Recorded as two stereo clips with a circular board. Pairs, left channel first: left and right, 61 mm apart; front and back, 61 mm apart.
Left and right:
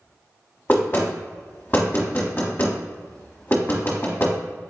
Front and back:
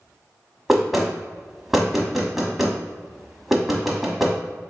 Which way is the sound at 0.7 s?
95° left.